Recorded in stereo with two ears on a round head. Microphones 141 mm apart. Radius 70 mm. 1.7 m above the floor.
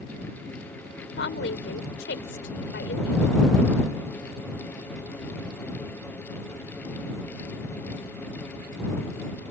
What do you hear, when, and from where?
1.2 s a woman speaking: 85° left